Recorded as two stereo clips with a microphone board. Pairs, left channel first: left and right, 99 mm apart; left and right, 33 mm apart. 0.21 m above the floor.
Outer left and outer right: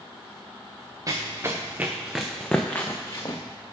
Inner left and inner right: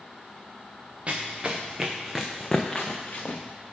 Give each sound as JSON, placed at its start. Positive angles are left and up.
{"t": 1.1, "sound": "running footsteps", "side_deg": -35, "distance_m": 1.2}